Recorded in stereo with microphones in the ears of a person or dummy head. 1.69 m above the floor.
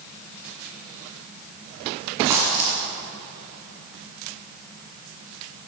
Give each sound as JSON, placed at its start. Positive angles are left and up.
{"t": 2.3, "sound": "a dropped coin", "side_deg": -15, "distance_m": 1.9}